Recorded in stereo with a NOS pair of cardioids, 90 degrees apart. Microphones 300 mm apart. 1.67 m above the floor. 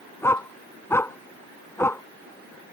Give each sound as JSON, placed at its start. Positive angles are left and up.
{"t": 0.2, "sound": "a dog barking", "azimuth_deg": 10}